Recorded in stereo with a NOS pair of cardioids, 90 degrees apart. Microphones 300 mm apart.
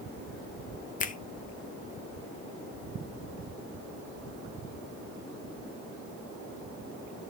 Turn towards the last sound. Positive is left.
turn(degrees=25)